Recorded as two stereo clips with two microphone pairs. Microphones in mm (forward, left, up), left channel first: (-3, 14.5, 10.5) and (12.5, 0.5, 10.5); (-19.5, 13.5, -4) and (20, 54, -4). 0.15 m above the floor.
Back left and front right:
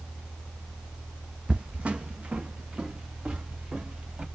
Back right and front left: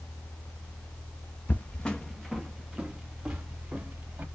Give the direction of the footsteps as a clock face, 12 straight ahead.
3 o'clock.